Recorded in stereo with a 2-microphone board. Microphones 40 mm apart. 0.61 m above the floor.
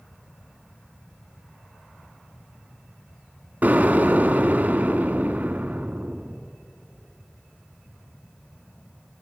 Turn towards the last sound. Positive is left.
turn(degrees=-50)  # may be behind; listen again after turning